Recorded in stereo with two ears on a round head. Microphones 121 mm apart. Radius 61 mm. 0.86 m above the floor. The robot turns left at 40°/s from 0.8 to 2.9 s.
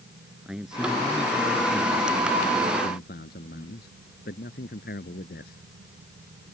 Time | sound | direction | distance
0.5 | a man speaking | 175° right | ?